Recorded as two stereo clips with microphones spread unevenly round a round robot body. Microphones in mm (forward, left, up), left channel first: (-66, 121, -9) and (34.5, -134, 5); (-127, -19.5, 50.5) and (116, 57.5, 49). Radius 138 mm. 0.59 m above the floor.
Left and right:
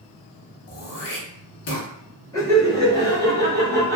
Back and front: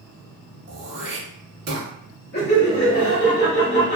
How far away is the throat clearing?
About 0.9 m.